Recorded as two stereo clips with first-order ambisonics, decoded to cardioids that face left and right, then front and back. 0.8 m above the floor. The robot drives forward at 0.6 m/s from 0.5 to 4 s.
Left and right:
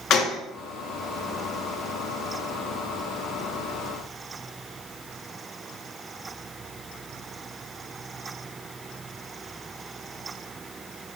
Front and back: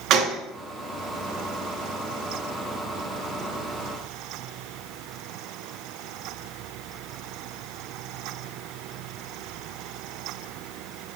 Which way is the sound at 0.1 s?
135° left.